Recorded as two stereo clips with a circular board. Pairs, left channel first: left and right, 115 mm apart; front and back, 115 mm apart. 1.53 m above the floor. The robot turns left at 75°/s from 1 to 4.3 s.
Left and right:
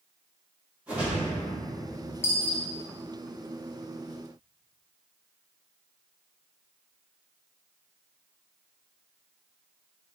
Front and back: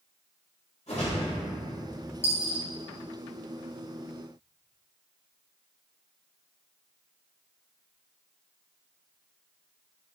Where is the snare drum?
I don't hear a snare drum.